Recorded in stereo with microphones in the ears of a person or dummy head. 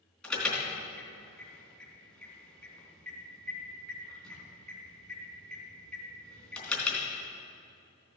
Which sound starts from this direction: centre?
An alarm, at 0.2 s.